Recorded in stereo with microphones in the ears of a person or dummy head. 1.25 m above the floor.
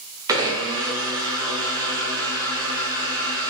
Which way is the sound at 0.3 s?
15° right (ahead or behind).